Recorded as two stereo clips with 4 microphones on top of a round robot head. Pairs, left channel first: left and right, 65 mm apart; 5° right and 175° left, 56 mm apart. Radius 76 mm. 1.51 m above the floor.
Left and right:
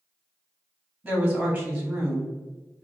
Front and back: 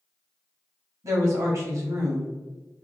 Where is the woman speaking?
165° right, 1.0 m.